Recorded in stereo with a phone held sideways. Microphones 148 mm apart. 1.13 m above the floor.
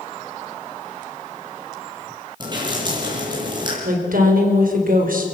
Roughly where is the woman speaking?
Right.